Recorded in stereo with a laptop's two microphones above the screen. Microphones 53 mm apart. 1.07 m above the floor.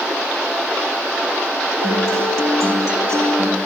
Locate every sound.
1.8 s a guitar: 65° right (ahead or behind), 3.5 m